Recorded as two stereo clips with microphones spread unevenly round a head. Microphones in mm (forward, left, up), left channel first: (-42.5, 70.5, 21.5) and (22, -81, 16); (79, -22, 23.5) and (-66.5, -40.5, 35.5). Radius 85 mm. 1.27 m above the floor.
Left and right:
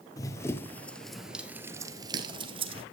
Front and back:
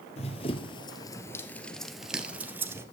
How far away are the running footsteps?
About 1.6 m.